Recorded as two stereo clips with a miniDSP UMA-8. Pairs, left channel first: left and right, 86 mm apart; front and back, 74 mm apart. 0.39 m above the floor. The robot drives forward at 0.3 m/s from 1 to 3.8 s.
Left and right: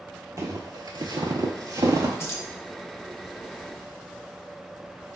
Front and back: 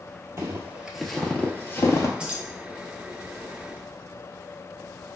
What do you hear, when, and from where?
0.4 s footsteps: 135° right, 0.7 m; by 2.1 s 40° right, 0.6 m
2.2 s keys jangling: 115° left, 0.6 m; by 2.4 s 125° left, 0.6 m